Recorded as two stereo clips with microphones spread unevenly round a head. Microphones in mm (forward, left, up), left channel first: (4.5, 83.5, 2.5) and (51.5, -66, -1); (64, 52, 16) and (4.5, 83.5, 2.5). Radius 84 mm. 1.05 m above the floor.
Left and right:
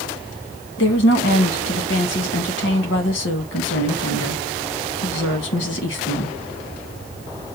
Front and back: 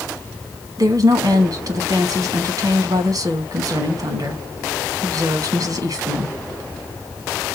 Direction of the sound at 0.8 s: 125° left.